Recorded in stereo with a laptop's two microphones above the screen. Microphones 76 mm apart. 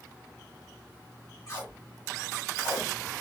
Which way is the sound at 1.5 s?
50° left (ahead or behind).